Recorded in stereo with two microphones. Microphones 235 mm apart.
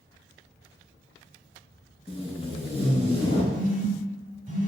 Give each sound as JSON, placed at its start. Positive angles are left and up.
{"t": 2.1, "sound": "tape being pulled", "side_deg": 25, "distance_m": 1.1}
{"t": 3.5, "sound": "a phone buzzing", "side_deg": -35, "distance_m": 0.6}